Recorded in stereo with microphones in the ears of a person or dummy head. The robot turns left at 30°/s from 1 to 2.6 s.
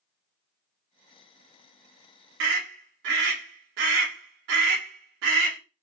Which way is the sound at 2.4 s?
70° right (ahead or behind).